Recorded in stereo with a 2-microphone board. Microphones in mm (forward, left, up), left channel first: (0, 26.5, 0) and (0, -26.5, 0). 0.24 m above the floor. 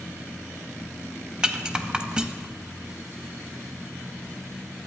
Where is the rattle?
15° right (ahead or behind), 0.5 m.